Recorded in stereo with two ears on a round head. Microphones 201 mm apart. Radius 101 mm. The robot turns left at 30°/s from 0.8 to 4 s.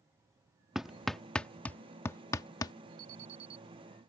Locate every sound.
0.8 s hammering: centre (ahead or behind); by 2.7 s 15° left (ahead or behind)
3.0 s an alarm: 70° right (ahead or behind); by 3.6 s 50° right (ahead or behind)